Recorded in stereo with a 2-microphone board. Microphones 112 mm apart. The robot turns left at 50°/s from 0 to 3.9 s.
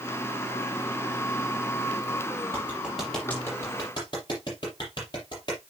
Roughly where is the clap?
Right.